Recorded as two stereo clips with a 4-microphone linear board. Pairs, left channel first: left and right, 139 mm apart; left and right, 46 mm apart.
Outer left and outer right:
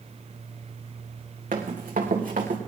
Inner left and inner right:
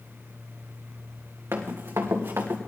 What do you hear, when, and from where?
1.5 s running footsteps: 75° right (ahead or behind), 3 m; by 2.6 s 70° right (ahead or behind), 3 m